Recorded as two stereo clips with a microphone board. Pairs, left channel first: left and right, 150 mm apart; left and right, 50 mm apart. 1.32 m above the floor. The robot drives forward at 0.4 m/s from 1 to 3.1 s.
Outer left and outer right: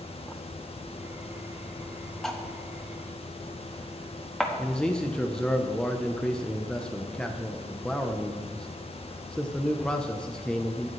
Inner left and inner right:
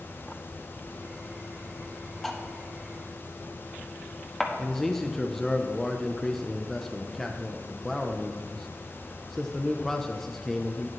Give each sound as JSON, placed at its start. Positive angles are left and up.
{"t": 2.2, "sound": "cutlery clinking", "side_deg": 5, "distance_m": 0.9}
{"t": 4.6, "sound": "a man speaking", "side_deg": 5, "distance_m": 0.7}